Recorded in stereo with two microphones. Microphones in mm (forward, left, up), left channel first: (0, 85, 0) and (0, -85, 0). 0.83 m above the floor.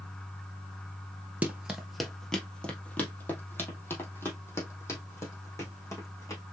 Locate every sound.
1.4 s running footsteps: 10° right (ahead or behind), 1.0 m; by 6.4 s 20° left (ahead or behind), 3.5 m